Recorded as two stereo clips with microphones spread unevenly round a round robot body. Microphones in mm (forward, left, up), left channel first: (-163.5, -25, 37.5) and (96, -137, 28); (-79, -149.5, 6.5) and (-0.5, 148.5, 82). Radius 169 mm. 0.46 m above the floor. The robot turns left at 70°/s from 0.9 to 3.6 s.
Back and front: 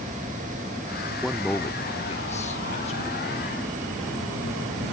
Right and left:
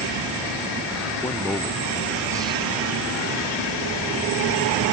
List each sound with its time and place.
1.2 s a man speaking: 105° right; by 3.5 s 90° left